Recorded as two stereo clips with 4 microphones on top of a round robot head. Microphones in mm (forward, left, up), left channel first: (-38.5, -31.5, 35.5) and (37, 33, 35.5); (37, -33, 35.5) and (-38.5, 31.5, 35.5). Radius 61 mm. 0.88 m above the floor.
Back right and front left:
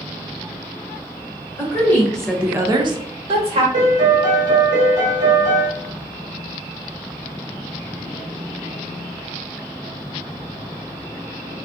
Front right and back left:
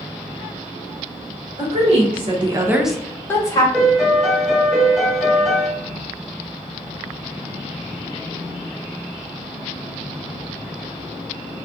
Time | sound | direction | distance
1.6 | a woman speaking | 155° left | 1.1 m
3.7 | a piano | 50° left | 0.9 m